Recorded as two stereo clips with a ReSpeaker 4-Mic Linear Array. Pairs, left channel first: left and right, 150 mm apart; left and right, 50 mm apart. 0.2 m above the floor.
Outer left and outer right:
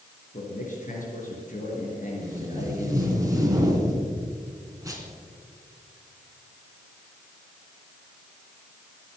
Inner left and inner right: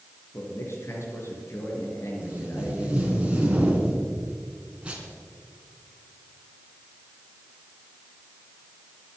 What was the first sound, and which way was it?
A man speaking, 60° left (ahead or behind).